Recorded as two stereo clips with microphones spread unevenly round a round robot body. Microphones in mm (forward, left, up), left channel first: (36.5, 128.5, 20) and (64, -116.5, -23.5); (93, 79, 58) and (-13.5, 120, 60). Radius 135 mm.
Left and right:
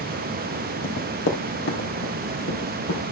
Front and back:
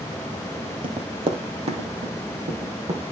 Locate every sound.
0.8 s running footsteps: 135° left, 1.5 m